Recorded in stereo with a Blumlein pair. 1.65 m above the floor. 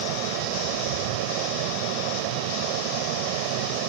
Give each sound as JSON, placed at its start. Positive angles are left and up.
{"t": 0.0, "sound": "a fan", "azimuth_deg": -45}